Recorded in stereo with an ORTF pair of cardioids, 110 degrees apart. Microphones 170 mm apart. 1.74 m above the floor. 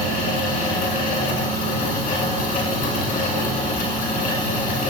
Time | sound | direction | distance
0.0 | a fan | 60° left | 3 m